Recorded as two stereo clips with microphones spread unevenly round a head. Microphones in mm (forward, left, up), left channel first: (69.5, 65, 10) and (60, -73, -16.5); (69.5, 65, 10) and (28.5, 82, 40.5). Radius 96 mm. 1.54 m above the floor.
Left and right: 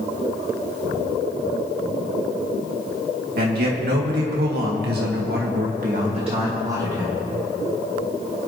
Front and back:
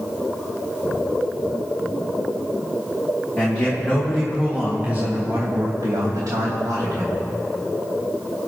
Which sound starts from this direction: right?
A man speaking, at 3.4 s.